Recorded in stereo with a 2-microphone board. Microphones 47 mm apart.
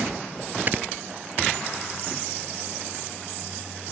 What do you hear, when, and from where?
0.7 s snoring: 45° right (ahead or behind)